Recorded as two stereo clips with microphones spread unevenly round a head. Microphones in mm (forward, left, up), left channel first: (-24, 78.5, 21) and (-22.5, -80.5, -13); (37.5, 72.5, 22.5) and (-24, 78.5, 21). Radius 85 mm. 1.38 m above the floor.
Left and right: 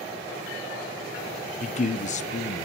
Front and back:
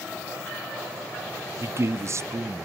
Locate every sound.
1.6 s a man speaking: 135° left, 0.6 m